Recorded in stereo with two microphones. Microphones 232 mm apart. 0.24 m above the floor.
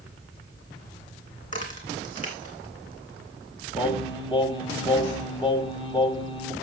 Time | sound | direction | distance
1.4 | a crack | 30° left (ahead or behind) | 3 m
3.8 | singing | 20° left (ahead or behind) | 1.4 m